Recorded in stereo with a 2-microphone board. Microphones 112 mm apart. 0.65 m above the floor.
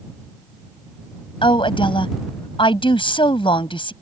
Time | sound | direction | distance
1.4 | a woman speaking | 50° left (ahead or behind) | ?